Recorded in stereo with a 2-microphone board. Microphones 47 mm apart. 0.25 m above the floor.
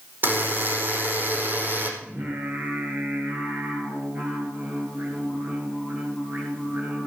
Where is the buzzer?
45° right (ahead or behind), 4.5 m.